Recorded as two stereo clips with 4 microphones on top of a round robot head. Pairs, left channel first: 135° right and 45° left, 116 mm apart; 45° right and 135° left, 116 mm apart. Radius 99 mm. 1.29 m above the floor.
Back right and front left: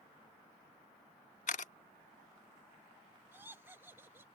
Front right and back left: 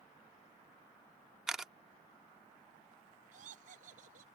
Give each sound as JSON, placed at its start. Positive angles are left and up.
{"t": 1.5, "sound": "a camera shutter", "azimuth_deg": -140}
{"t": 3.3, "sound": "laughter", "azimuth_deg": 115}